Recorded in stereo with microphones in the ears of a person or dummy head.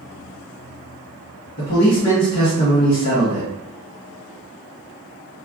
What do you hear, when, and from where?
1.6 s a man speaking: 45° left (ahead or behind), 1.2 m